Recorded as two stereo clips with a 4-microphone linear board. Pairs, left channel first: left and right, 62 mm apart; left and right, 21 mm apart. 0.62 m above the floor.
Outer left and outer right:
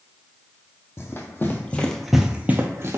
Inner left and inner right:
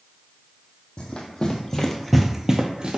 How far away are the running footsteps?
About 1.0 m.